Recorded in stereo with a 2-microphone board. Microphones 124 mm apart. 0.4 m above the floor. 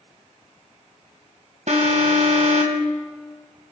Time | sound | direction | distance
1.7 | an alarm | 65° right (ahead or behind) | 1.8 m